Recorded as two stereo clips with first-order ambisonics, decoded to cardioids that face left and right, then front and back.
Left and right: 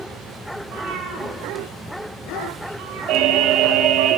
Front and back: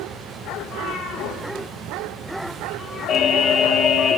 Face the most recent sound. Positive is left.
turn(degrees=-55)